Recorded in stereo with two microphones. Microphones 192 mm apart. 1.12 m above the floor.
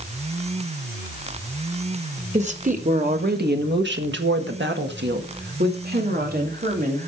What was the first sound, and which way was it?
A woman speaking, 35° right (ahead or behind).